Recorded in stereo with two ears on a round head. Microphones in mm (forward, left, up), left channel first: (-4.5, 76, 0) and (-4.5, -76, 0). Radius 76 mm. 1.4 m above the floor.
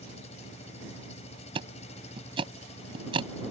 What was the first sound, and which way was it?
An engine running, 40° left (ahead or behind).